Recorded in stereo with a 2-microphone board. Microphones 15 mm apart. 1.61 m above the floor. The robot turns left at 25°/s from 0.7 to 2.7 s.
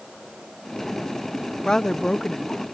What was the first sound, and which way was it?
A woman speaking, 55° left (ahead or behind).